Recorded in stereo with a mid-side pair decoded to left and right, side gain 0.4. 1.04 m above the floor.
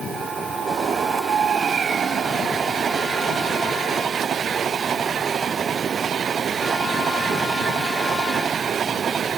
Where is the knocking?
No knocking in this recording.